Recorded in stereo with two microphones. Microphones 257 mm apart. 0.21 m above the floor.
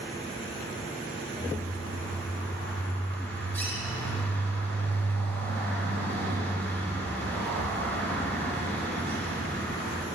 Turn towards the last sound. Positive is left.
turn(degrees=10)  # may be behind; listen again after turning